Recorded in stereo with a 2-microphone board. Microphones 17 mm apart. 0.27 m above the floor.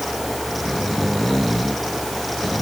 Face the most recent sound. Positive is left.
No sound to turn to.